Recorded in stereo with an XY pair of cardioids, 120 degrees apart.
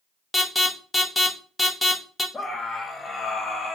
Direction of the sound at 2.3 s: 15° left.